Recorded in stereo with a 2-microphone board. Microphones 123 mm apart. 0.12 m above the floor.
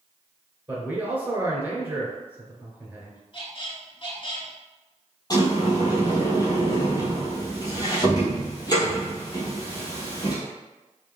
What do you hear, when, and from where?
0.7 s a man speaking: 15° right (ahead or behind), 1.8 m
3.3 s a squeak: 45° left (ahead or behind), 0.9 m
5.3 s a sliding door: 30° left (ahead or behind), 1.6 m